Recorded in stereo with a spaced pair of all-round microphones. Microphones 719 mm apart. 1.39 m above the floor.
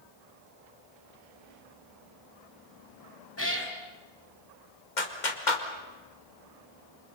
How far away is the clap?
About 2 m.